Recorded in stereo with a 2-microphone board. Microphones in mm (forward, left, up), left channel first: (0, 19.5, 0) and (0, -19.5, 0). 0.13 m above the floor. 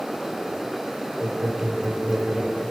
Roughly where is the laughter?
Right.